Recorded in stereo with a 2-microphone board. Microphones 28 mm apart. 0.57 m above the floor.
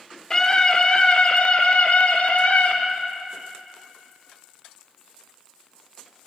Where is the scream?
25° left (ahead or behind), 1.6 m; by 2.8 s 65° left (ahead or behind), 2.5 m.